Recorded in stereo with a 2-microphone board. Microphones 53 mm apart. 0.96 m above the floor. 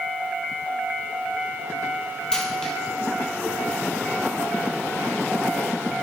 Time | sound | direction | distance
2.3 | a dropped coin | 10° left (ahead or behind) | 2.5 m